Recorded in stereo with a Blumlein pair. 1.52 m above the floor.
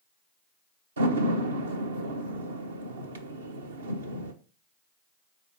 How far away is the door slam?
About 1.0 m.